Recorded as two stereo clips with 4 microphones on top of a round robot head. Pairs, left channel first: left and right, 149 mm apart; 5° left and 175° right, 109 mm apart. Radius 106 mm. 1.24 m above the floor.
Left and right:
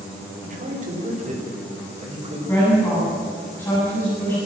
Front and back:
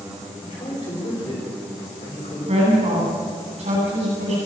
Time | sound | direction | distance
0.4 | a man speaking | 50° right | 4.5 m
2.5 | a woman speaking | 170° left | 9 m